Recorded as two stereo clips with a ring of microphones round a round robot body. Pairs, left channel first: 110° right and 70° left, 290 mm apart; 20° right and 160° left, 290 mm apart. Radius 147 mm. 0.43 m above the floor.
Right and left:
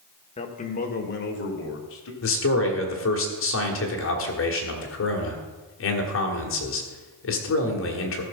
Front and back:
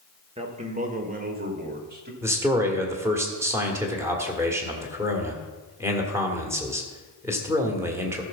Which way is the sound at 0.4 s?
155° right.